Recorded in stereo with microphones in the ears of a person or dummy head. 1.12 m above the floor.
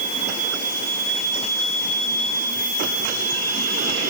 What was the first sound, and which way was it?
Only background noise.